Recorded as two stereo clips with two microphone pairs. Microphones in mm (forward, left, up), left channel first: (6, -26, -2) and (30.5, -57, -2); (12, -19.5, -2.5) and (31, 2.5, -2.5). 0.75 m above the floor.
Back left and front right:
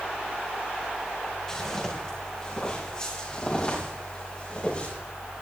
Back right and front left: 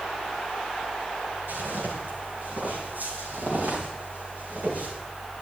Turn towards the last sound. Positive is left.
turn(degrees=75)